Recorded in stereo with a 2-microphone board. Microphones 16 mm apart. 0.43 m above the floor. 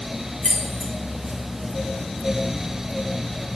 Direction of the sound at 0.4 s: 55° left (ahead or behind).